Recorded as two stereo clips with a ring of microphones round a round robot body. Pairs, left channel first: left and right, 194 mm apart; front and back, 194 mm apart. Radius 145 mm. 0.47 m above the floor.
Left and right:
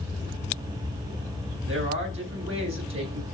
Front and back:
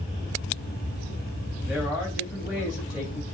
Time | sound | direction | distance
1.6 | a man speaking | 95° right | 3.5 m